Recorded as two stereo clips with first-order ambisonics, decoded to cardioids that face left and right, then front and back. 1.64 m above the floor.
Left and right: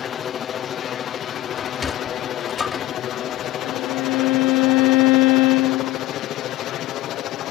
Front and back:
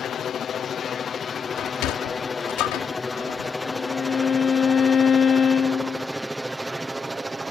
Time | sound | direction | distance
0.0 | a helicopter | 45° left | ?
1.6 | a sliding door | 15° left | ?
3.6 | a violin | 70° left | ?